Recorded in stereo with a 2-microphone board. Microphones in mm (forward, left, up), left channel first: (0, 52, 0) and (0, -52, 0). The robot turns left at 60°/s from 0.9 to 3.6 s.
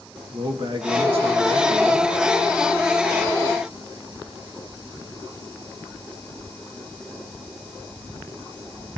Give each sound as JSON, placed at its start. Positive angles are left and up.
{"t": 0.3, "sound": "a man speaking", "azimuth_deg": -50, "distance_m": 1.3}